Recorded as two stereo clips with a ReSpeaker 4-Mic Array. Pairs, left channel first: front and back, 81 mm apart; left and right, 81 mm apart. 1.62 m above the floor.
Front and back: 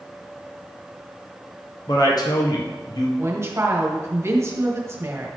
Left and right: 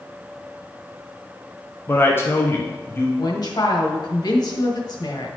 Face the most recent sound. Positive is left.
turn(degrees=125)